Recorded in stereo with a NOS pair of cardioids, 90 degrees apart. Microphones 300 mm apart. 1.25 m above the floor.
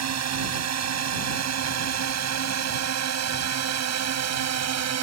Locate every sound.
0.0 s a drone: 60° right